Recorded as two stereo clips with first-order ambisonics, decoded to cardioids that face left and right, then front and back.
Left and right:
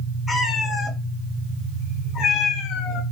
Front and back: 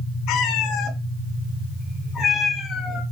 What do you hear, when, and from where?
0.3 s a cat meowing: 10° left, 2.5 m; by 3.0 s 75° left, 2.0 m